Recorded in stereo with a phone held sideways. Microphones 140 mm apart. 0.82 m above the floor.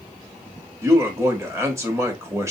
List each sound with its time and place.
0.8 s a man speaking: 20° right (ahead or behind), 1.3 m